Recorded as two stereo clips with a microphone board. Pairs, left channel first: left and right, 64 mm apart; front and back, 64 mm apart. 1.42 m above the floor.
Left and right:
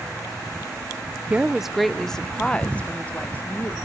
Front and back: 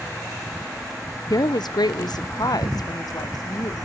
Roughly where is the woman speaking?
Ahead.